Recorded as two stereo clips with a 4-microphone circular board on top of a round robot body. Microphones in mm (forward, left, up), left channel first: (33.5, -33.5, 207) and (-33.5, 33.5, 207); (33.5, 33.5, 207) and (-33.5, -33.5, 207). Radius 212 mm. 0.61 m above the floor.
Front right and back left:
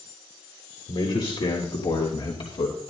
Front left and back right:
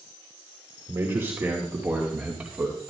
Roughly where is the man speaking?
Right.